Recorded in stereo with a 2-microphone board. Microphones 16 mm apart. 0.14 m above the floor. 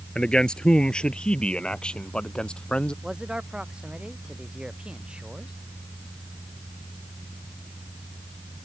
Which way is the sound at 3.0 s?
70° right (ahead or behind).